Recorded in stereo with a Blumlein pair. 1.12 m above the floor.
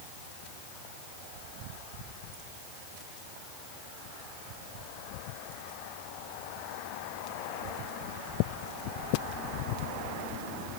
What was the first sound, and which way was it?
Only background noise.